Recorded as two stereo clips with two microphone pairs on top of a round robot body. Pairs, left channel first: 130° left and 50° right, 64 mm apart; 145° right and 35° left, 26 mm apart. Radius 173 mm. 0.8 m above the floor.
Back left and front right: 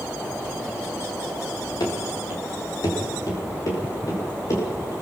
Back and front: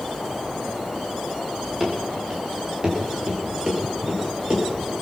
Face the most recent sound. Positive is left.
turn(degrees=85)